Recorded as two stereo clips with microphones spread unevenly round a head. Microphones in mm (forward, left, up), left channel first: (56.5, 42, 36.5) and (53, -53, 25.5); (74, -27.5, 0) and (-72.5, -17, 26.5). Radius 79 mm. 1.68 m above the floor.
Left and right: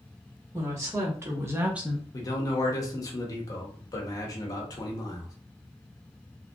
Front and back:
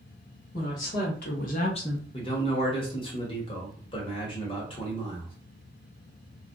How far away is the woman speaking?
About 2 m.